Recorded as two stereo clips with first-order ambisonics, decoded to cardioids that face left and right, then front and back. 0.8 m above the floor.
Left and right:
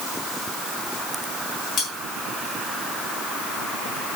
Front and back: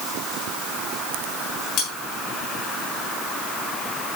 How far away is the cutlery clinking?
About 5 m.